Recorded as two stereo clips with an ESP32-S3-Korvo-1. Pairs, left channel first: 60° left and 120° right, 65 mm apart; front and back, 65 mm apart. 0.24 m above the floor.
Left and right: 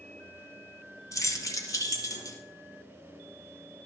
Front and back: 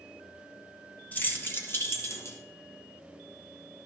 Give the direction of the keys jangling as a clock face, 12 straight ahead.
10 o'clock.